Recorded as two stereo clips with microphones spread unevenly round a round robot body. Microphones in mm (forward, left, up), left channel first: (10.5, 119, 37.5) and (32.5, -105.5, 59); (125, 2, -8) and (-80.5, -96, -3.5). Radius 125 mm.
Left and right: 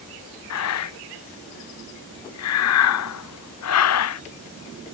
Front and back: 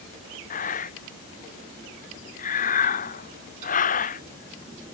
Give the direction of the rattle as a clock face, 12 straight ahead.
I don't hear a rattle.